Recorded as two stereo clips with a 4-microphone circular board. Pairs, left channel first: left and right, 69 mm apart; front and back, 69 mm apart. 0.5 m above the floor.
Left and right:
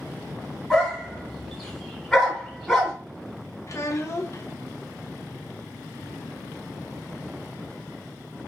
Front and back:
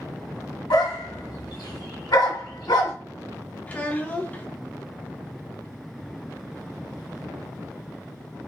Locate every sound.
0.7 s a dog barking: 5° left, 1.5 m
3.7 s a child speaking: 65° left, 0.7 m